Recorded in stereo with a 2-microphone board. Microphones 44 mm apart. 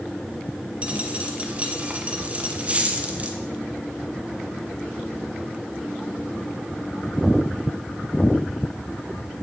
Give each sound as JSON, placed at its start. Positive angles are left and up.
{"t": 0.8, "sound": "a dropped coin", "side_deg": -30, "distance_m": 1.6}